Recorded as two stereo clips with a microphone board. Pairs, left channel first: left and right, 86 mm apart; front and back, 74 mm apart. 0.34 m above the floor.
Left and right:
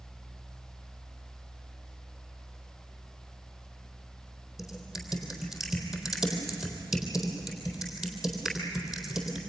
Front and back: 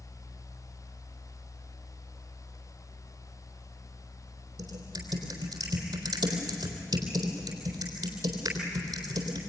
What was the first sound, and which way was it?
Typing on a keyboard, 175° right.